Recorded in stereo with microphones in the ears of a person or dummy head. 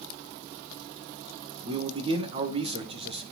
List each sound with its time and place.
1.6 s a man speaking: 30° right (ahead or behind), 1.6 m